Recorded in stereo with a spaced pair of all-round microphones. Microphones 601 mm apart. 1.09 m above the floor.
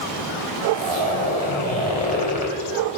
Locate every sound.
0.7 s a zipper: 90° left, 5 m